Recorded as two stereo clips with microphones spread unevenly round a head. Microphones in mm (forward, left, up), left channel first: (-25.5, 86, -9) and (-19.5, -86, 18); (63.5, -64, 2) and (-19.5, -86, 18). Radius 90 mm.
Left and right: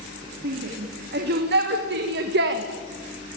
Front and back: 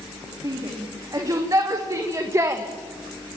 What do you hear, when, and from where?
0.4 s a shout: 120° right, 4.5 m; by 2.6 s 110° right, 2 m